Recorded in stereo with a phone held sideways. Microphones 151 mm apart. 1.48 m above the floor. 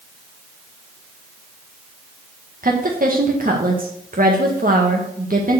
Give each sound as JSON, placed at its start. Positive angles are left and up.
{"t": 2.6, "sound": "a woman speaking", "side_deg": -60, "distance_m": 1.7}